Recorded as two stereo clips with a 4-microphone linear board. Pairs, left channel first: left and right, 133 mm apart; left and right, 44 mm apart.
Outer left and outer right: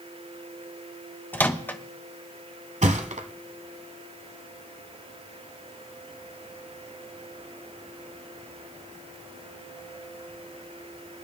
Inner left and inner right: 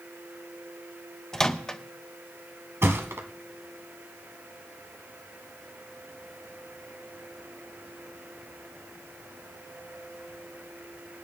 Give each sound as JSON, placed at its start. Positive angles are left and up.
{"t": 1.3, "sound": "a microwave", "side_deg": 15, "distance_m": 0.7}
{"t": 2.8, "sound": "a thud", "side_deg": -70, "distance_m": 1.2}